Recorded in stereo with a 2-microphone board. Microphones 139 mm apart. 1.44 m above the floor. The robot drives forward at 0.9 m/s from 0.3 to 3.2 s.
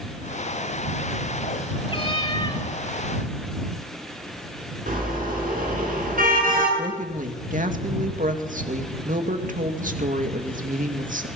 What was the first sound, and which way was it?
A cat meowing, 40° left (ahead or behind).